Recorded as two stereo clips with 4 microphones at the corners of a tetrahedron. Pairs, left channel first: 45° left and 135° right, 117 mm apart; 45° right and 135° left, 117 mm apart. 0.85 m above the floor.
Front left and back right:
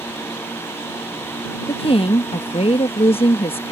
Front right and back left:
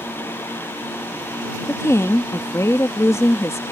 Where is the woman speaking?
20° left.